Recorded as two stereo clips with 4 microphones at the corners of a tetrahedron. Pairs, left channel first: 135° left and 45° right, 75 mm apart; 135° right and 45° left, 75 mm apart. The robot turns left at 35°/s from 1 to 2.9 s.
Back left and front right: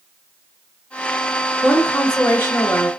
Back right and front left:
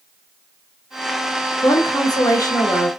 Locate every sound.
1.6 s a woman speaking: 135° right, 0.9 m; by 2.9 s straight behind, 0.9 m